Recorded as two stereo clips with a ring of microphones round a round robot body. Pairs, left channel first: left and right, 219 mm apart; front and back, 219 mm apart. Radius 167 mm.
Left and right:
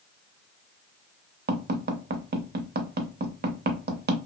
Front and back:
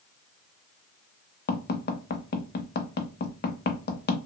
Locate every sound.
1.5 s tapping: 45° right, 0.7 m